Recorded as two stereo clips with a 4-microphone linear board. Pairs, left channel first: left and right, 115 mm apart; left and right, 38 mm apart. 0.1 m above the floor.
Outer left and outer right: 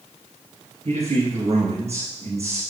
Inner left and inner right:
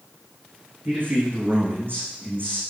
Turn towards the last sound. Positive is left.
turn(degrees=-60)  # may be behind; listen again after turning